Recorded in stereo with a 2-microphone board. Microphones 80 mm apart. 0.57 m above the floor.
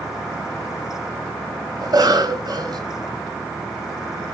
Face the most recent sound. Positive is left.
turn(degrees=-65)  # may be behind; listen again after turning